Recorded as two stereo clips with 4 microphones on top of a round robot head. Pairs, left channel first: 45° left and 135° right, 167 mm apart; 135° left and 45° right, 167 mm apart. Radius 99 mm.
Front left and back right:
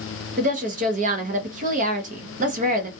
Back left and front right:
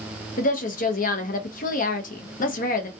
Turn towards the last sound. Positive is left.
turn(degrees=180)